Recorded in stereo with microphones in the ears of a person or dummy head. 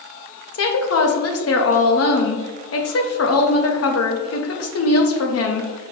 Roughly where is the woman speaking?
Left.